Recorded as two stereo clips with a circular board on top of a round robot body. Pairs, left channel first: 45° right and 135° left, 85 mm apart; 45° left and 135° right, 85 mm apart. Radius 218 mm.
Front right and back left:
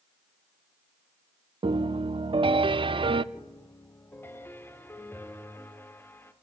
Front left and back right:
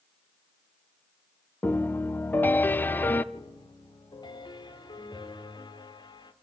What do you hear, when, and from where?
1.6 s a piano: 115° left, 0.6 m
3.3 s a piano: 20° left, 1.7 m